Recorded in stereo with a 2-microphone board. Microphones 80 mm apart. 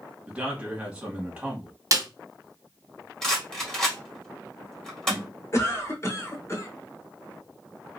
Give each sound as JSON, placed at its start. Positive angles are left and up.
{"t": 0.3, "sound": "a man speaking", "side_deg": -15, "distance_m": 1.7}
{"t": 1.9, "sound": "a snare drum", "side_deg": -45, "distance_m": 0.7}
{"t": 3.2, "sound": "a rattle", "side_deg": 10, "distance_m": 1.6}
{"t": 5.5, "sound": "a cough", "side_deg": 35, "distance_m": 1.1}